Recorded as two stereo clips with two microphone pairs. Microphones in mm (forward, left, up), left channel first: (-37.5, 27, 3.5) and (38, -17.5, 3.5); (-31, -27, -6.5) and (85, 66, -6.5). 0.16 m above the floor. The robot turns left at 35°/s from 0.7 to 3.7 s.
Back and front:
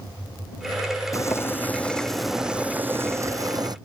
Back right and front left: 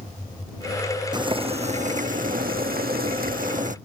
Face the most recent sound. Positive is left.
turn(degrees=10)